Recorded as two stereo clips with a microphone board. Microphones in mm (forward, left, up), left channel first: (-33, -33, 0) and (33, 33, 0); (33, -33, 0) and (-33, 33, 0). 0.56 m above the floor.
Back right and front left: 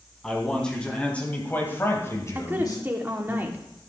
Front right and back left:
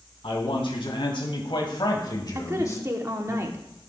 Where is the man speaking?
50° right, 3.5 m; by 3.4 s 115° right, 2 m.